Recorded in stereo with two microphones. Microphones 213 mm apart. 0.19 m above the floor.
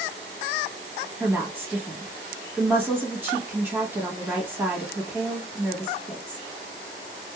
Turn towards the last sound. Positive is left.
turn(degrees=-10)  # may be behind; listen again after turning